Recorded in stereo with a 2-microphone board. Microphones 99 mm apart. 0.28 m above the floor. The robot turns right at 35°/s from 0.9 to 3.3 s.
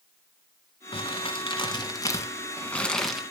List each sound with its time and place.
0.9 s crumpling: 100° left, 1.6 m; by 3.2 s straight behind, 1.6 m